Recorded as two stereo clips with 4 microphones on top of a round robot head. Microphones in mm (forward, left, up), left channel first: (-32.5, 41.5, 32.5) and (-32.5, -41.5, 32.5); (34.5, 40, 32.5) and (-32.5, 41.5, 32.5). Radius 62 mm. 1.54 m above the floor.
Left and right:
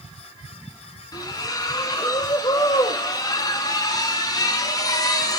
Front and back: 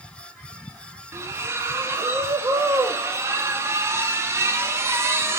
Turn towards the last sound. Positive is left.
turn(degrees=130)